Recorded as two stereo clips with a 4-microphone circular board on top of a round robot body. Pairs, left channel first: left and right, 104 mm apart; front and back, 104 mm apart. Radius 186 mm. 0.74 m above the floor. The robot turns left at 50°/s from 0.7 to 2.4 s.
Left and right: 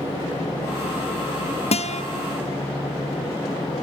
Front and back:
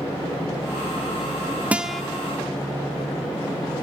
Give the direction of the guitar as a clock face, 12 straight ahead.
9 o'clock.